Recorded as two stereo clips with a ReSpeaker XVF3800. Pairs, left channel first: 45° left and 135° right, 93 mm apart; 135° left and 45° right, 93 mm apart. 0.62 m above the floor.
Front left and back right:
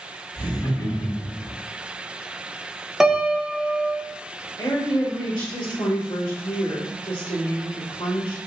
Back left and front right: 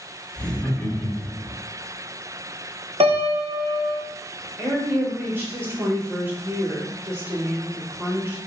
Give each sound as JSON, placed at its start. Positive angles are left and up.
{"t": 0.3, "sound": "laughter", "azimuth_deg": 65, "distance_m": 1.5}
{"t": 3.0, "sound": "a piano", "azimuth_deg": -50, "distance_m": 0.5}
{"t": 4.6, "sound": "a woman speaking", "azimuth_deg": 15, "distance_m": 1.5}